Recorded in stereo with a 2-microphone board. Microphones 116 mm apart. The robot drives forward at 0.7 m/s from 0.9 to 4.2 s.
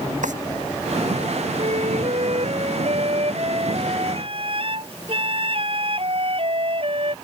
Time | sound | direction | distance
0.2 | a drawer | 80° right | ?
1.6 | a flute | 60° right (ahead or behind) | ?